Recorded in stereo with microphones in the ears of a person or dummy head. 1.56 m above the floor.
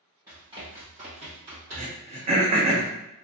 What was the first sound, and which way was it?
Running footsteps, 15° right (ahead or behind).